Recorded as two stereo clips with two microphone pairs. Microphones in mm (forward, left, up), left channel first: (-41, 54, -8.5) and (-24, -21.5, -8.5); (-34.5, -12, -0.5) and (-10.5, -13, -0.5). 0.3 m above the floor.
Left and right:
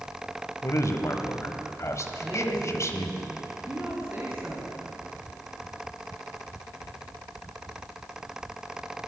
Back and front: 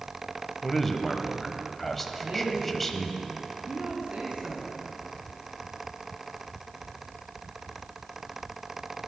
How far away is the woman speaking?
About 3 m.